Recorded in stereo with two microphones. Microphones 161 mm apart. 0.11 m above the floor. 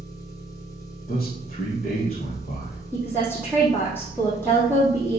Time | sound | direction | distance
0.0 | an engine running | 20° left (ahead or behind) | 3.5 m
1.1 | a man speaking | 45° left (ahead or behind) | 2 m
2.9 | a woman speaking | 10° left (ahead or behind) | 4 m